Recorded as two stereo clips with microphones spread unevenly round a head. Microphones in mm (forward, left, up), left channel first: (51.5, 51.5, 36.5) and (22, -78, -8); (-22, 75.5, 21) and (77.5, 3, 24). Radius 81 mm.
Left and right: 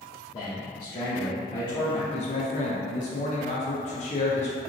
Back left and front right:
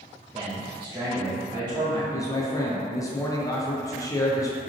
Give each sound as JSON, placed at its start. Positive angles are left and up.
{"t": 0.3, "sound": "a man speaking", "azimuth_deg": 20, "distance_m": 1.1}
{"t": 2.1, "sound": "a man speaking", "azimuth_deg": 105, "distance_m": 0.6}